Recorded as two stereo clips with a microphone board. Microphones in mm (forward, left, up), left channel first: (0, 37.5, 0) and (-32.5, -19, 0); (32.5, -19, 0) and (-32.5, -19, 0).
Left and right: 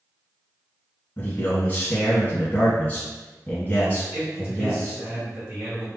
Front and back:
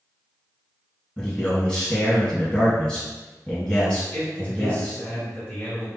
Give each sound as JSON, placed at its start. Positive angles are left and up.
{"t": 1.2, "sound": "a man speaking", "azimuth_deg": 60, "distance_m": 1.0}
{"t": 4.1, "sound": "a man speaking", "azimuth_deg": -60, "distance_m": 2.0}